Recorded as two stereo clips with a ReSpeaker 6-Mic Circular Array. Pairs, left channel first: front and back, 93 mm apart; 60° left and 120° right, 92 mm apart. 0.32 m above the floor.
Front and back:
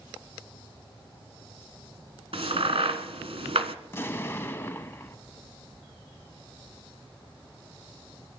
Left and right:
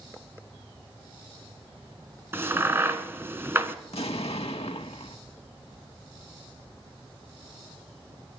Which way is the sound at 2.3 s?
175° left.